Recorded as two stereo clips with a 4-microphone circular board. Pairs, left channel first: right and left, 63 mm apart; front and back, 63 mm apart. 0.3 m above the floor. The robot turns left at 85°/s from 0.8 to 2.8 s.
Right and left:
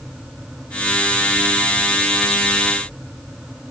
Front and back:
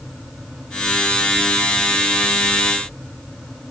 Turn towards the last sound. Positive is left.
No sound to turn to.